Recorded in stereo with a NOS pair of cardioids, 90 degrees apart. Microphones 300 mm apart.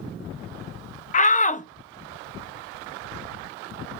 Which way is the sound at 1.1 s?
25° left.